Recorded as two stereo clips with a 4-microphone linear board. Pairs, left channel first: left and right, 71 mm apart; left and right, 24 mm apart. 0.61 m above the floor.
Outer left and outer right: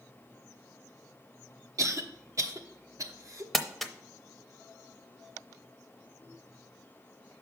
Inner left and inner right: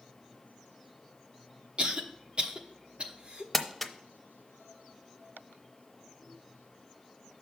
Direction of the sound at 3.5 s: 5° left (ahead or behind).